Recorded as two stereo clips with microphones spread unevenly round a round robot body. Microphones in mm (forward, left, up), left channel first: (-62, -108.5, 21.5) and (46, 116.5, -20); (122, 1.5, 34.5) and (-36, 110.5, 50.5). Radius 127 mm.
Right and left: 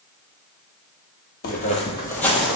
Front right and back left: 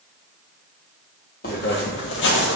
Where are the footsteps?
85° right, 0.8 m; by 2.6 s 25° right, 0.9 m.